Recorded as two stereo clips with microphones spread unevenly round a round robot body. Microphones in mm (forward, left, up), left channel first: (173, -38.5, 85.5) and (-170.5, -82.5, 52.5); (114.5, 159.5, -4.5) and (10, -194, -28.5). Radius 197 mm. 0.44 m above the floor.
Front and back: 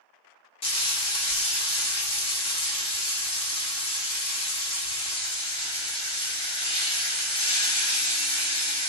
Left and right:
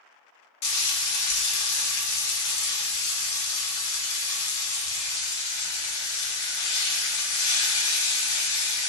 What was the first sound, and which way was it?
Frying, 85° left.